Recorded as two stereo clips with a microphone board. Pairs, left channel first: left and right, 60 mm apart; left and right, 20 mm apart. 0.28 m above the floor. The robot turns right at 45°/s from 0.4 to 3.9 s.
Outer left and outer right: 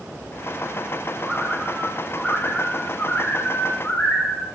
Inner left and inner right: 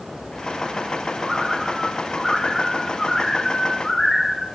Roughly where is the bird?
Ahead right.